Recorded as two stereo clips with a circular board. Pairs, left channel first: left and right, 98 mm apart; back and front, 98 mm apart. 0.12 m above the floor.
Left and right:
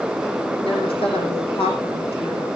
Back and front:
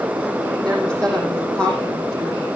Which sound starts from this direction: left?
A woman speaking, at 0.6 s.